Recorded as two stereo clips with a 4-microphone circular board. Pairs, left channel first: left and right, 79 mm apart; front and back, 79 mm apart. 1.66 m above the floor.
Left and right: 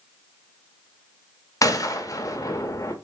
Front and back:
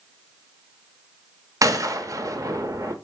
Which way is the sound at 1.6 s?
135° left.